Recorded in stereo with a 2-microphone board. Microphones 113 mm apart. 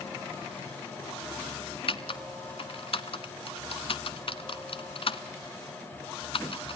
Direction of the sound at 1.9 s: 55° left (ahead or behind).